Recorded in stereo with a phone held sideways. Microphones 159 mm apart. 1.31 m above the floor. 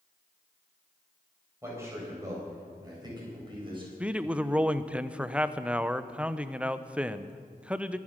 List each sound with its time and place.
1.6 s a man speaking: 15° right (ahead or behind), 7 m; by 3.9 s 35° right (ahead or behind), 6.5 m
4.0 s a man speaking: 5° right (ahead or behind), 0.7 m